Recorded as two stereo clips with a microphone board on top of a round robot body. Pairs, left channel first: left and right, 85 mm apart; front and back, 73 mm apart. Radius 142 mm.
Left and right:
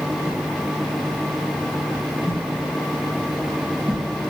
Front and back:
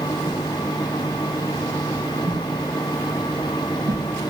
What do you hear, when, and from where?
0.2 s a whoosh: 155° left, 0.6 m